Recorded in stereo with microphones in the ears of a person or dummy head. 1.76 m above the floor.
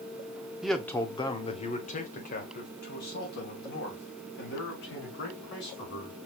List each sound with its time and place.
0.6 s a man speaking: centre (ahead or behind), 0.6 m; by 6.2 s 65° left (ahead or behind), 3.5 m